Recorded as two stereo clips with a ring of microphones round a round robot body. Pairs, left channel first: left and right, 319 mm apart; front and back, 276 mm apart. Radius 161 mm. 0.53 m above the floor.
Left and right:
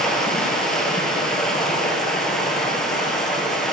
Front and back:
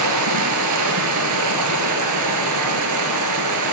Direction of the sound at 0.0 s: Straight behind.